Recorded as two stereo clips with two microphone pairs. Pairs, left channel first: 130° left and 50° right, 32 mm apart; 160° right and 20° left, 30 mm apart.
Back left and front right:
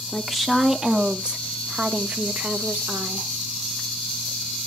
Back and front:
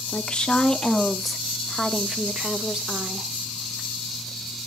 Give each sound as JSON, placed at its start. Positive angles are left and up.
{"t": 0.1, "sound": "a woman speaking", "azimuth_deg": -140, "distance_m": 0.9}